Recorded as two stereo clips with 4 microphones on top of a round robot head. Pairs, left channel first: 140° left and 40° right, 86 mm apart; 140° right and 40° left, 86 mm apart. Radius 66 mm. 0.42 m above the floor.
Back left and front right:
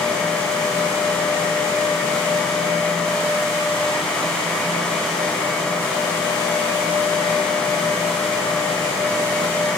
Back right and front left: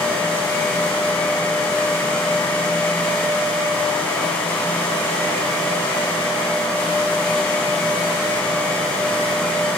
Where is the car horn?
No car horn in this recording.